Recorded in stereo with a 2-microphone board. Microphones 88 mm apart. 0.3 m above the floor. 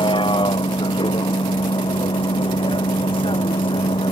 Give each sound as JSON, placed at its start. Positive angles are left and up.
{"t": 0.0, "sound": "a vehicle", "side_deg": 70}